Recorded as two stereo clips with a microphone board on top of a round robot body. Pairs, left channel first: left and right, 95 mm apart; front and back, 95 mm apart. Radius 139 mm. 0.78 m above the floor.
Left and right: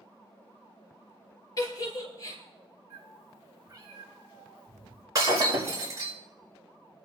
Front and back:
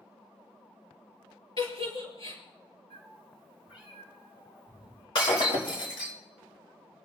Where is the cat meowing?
35° right, 6.5 m.